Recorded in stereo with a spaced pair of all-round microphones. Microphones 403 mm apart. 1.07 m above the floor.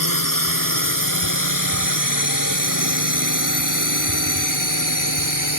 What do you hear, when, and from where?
0.0 s a drone: 60° left (ahead or behind); by 5.6 s 55° left (ahead or behind)